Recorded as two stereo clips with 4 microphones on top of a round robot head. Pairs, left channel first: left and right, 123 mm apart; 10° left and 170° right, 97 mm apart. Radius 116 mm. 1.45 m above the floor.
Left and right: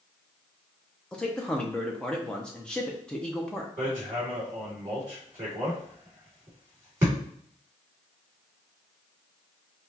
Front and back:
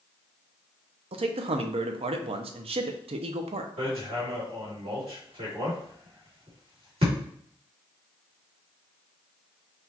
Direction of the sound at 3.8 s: 160° right.